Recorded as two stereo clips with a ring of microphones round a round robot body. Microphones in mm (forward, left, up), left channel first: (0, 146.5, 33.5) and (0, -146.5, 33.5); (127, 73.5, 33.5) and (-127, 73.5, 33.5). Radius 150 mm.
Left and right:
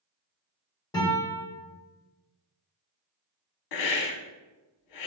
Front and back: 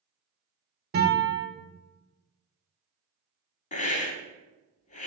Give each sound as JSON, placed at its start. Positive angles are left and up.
{"t": 0.9, "sound": "a guitar", "azimuth_deg": 160, "distance_m": 1.3}
{"t": 3.7, "sound": "a hiss", "azimuth_deg": 65, "distance_m": 0.6}